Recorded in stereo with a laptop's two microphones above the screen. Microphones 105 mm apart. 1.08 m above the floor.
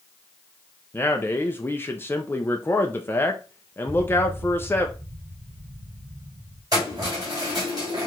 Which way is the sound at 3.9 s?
70° right (ahead or behind).